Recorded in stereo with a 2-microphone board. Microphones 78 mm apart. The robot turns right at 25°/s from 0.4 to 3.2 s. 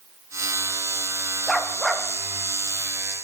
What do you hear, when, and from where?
1.5 s a dog barking: 5° left (ahead or behind), 3 m; by 2.1 s 10° right (ahead or behind), 3 m